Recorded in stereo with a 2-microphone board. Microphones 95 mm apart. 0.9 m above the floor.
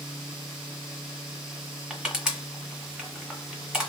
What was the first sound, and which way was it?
Crushing, 5° right (ahead or behind).